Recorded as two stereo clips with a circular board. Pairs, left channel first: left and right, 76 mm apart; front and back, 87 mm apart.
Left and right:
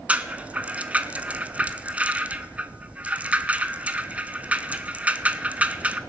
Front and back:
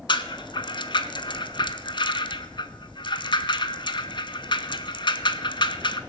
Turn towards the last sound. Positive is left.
turn(degrees=-20)